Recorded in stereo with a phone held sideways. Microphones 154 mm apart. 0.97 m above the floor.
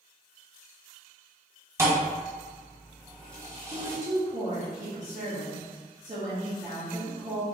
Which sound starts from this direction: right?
A woman speaking, at 3.7 s.